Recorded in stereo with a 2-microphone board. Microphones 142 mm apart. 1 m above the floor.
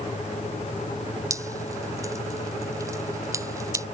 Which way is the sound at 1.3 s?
25° right (ahead or behind).